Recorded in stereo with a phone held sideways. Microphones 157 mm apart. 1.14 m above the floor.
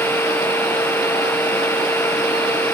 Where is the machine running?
10° left (ahead or behind).